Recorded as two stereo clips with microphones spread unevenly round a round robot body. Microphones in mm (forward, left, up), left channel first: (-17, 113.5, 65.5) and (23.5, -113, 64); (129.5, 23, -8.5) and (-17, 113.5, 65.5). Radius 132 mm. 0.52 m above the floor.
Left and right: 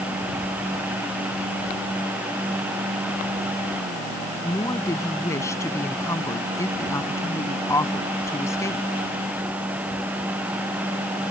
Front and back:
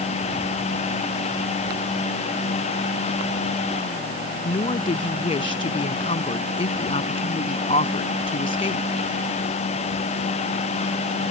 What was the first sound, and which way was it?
A woman speaking, 20° left.